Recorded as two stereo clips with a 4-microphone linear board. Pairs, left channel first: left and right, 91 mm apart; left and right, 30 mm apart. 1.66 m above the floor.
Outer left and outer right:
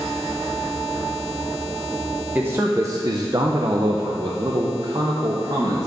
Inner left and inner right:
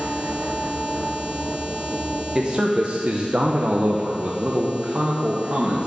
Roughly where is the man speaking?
Right.